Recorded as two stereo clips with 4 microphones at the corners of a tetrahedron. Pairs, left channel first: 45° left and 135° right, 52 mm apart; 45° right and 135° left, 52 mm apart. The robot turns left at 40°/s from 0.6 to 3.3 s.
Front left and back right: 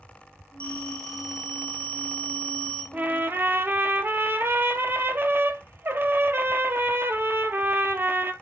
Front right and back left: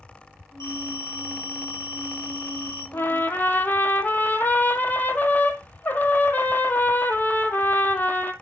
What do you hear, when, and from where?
0.6 s a phone ringing: 20° right, 5 m; by 2.8 s 110° right, 5 m
2.9 s a trumpet: 80° right, 1.1 m; by 8.3 s 95° right, 1.1 m